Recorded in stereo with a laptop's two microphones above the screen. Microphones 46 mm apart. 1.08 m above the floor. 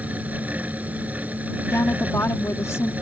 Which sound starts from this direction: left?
A woman speaking, at 1.7 s.